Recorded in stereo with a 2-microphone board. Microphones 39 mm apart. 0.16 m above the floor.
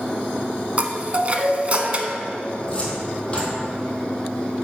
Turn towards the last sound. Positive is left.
turn(degrees=30)  # may be behind; listen again after turning